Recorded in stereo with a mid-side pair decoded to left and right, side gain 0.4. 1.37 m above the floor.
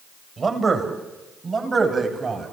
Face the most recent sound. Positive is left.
turn(degrees=-45)